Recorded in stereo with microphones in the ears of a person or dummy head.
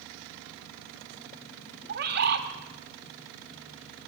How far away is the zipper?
I don't hear a zipper.